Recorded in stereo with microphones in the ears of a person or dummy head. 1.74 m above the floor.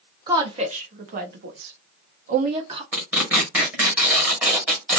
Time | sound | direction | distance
0.3 | a woman speaking | 25° right (ahead or behind) | 1.2 m
2.9 | tearing paper | 5° right (ahead or behind) | 1.2 m